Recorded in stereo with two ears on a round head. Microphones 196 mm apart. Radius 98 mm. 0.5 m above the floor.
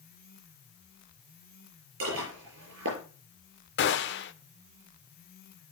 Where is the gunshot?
55° left (ahead or behind), 1.2 m.